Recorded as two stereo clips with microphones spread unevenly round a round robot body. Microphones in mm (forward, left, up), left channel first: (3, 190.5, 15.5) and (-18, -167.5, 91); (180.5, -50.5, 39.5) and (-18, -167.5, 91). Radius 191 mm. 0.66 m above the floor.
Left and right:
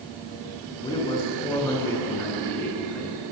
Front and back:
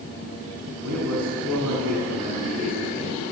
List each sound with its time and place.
0.8 s a man speaking: 165° left, 9.5 m; by 3.2 s 175° left, 10 m